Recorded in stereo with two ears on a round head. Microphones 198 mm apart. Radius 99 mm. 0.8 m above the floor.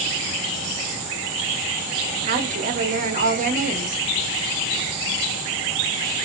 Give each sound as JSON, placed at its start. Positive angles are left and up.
{"t": 2.3, "sound": "a woman speaking", "side_deg": -35, "distance_m": 0.9}